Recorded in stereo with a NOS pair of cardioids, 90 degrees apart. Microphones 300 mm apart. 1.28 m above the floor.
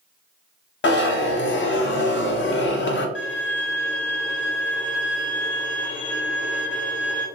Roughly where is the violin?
Ahead left.